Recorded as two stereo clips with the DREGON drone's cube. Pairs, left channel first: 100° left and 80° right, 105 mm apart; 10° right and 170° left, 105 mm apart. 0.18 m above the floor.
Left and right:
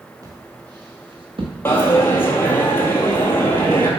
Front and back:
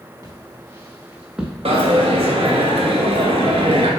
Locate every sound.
0.2 s footsteps: 135° right, 2 m; by 1.5 s 105° right, 1.7 m
1.6 s a dropped coin: 170° left, 1.2 m